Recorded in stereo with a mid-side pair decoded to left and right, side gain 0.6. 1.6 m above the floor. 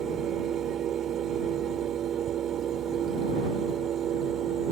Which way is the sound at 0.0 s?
50° right.